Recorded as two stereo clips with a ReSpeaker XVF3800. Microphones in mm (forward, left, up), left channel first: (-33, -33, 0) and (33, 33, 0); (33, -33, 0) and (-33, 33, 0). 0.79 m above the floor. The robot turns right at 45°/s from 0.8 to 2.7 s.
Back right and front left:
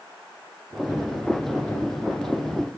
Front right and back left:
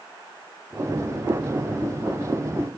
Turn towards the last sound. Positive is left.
No sound to turn to.